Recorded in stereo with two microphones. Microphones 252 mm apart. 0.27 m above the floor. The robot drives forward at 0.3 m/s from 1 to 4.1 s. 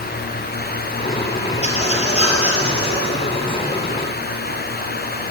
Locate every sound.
1.6 s a squeak: 25° left (ahead or behind), 3 m; by 3.1 s 20° left (ahead or behind), 3 m